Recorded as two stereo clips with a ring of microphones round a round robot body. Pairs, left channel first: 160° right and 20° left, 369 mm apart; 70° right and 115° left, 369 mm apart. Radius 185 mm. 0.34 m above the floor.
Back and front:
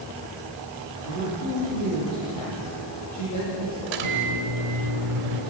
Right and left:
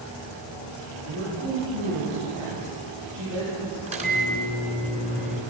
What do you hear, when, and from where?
1.1 s a man speaking: 155° left, 9 m
3.9 s a microwave: 40° left, 3 m